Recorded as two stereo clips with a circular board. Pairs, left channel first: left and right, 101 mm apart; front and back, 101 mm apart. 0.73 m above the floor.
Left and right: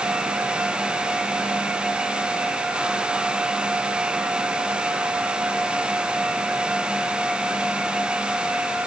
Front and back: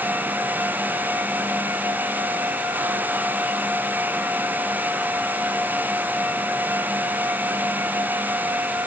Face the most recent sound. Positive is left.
No sound to turn to.